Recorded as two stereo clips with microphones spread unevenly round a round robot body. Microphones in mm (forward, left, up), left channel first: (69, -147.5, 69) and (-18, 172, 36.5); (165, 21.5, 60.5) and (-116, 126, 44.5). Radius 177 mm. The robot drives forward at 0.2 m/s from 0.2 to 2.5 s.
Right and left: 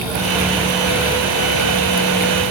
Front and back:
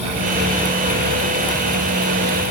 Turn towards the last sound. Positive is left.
No sound to turn to.